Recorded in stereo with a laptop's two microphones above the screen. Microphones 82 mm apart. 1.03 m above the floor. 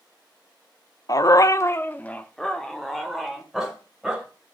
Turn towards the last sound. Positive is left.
turn(degrees=-5)  # may be behind; listen again after turning